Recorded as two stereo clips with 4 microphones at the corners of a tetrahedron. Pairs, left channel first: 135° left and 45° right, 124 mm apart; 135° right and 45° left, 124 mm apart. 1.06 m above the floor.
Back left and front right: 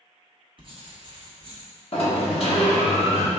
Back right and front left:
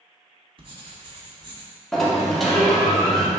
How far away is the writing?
About 0.9 m.